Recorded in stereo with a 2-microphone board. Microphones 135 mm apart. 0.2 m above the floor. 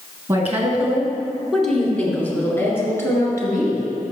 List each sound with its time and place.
0.3 s a woman speaking: 20° right (ahead or behind), 2 m; by 3.9 s 25° left (ahead or behind), 3 m